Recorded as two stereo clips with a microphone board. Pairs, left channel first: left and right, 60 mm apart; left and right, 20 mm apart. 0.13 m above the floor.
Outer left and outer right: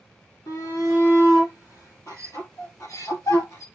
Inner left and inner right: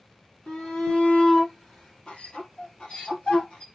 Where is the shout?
75° left (ahead or behind), 4 m; by 3.7 s 60° left (ahead or behind), 2.5 m.